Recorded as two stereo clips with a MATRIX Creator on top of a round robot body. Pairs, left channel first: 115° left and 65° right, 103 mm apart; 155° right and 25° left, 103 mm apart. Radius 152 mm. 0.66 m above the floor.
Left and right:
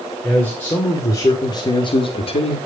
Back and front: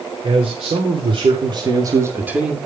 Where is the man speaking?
35° left, 3.5 m; by 2.6 s 110° left, 1.9 m.